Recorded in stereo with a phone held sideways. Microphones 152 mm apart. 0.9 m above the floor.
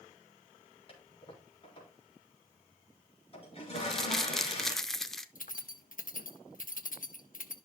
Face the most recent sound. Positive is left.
turn(degrees=65)  # may be behind; listen again after turning